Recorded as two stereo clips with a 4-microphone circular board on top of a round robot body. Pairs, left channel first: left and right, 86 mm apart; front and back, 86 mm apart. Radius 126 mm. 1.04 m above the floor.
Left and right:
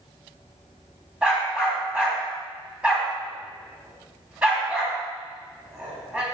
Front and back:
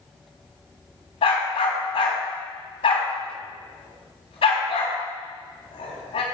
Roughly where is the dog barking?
Ahead.